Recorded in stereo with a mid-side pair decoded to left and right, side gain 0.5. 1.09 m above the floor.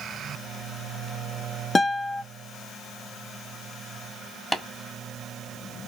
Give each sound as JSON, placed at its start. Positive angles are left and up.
{"t": 1.8, "sound": "a guitar", "azimuth_deg": 25, "distance_m": 0.5}
{"t": 4.5, "sound": "tapping", "azimuth_deg": 5, "distance_m": 1.4}